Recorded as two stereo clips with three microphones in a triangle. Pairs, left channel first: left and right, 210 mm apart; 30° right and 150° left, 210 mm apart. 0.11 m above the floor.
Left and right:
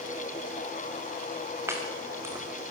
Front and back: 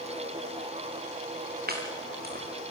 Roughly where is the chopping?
Behind.